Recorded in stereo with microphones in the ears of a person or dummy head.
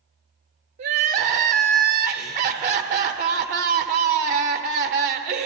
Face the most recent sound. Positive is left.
turn(degrees=-45)  # may be behind; listen again after turning